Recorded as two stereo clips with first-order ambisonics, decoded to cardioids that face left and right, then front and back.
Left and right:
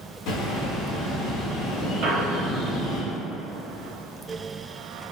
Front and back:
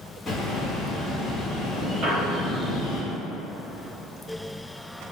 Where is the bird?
80° left, 0.7 m.